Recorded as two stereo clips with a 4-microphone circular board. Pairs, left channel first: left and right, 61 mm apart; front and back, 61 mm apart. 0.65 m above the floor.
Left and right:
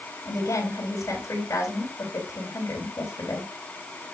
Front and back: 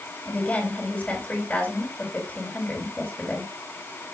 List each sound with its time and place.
0.2 s a woman speaking: 70° left, 4 m